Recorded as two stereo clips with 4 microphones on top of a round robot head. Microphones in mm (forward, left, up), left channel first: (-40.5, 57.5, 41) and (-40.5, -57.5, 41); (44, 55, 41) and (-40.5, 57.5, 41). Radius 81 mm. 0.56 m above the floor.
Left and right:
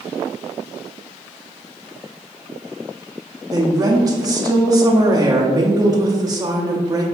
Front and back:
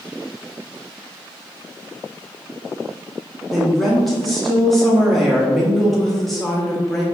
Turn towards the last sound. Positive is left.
turn(degrees=-85)